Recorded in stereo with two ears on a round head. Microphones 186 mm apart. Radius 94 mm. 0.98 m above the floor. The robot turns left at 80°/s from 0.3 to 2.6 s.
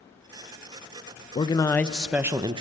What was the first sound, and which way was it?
A man speaking, 50° left.